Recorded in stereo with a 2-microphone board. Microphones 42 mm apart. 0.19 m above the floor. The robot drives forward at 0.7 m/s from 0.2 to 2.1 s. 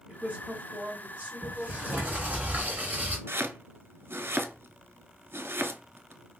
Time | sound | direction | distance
0.1 | a woman speaking | 30° right (ahead or behind) | 1.6 m
1.4 | a sliding door | 40° right (ahead or behind) | 1.4 m
3.3 | chopping | 80° right | 0.5 m